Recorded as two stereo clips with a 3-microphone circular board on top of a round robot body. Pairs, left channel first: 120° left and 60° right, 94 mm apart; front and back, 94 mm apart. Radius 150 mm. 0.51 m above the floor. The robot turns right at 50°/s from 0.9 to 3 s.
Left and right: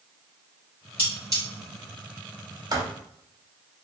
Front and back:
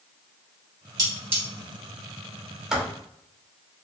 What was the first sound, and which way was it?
Cutlery clinking, 130° right.